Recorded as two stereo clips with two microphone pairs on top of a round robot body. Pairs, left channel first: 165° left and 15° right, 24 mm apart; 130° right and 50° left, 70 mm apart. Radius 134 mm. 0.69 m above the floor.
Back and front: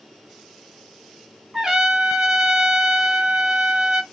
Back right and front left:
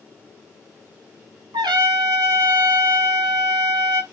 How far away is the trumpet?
About 1.4 m.